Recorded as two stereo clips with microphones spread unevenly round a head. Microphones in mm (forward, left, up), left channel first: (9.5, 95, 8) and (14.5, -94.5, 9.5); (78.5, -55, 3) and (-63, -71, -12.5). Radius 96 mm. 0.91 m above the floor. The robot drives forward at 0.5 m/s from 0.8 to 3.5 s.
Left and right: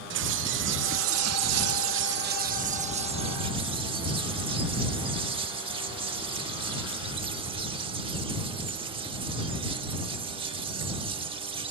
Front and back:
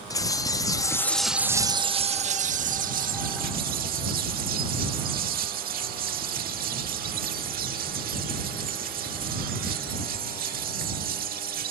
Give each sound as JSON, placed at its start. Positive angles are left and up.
{"t": 0.1, "sound": "a bird", "azimuth_deg": -60}